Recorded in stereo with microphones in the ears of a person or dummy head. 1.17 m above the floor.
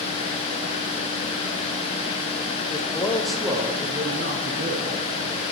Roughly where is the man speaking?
Left.